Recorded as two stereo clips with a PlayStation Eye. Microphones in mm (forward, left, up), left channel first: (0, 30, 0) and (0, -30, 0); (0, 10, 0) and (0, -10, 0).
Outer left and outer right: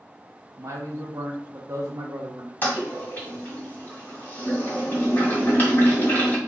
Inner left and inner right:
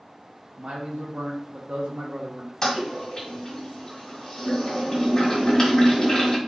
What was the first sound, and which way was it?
A man speaking, 60° right (ahead or behind).